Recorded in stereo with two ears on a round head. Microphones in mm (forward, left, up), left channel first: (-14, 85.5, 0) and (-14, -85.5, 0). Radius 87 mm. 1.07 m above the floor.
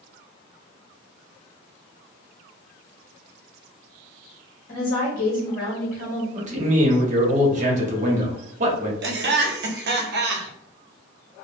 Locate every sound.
4.7 s a woman speaking: 45° left (ahead or behind), 1.4 m
6.3 s a man speaking: 40° right (ahead or behind), 0.9 m
9.0 s laughter: 60° right (ahead or behind), 0.7 m